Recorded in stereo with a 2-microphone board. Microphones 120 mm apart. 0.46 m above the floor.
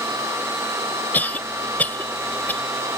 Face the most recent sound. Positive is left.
turn(degrees=15)  # may be behind; listen again after turning